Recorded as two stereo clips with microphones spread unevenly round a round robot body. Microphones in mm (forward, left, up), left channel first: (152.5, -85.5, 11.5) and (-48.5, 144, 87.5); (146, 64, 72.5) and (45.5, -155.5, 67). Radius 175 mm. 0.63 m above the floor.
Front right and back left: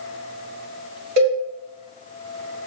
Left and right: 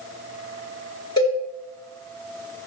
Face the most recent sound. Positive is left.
turn(degrees=135)